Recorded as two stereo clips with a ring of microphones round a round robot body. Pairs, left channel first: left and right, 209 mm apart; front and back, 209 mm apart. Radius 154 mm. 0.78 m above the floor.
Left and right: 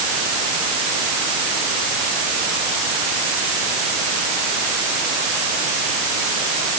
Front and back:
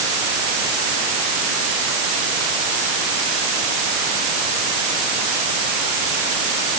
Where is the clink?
I don't hear a clink.